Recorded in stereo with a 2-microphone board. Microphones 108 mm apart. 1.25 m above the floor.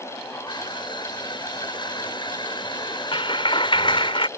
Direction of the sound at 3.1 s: 55° left (ahead or behind).